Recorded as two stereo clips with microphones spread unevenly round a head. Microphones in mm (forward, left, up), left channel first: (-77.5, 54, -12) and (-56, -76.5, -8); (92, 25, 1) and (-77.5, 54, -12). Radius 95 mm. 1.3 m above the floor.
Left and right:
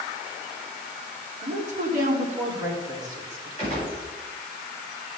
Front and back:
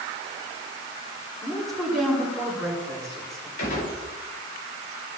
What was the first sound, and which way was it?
A woman speaking, 100° right.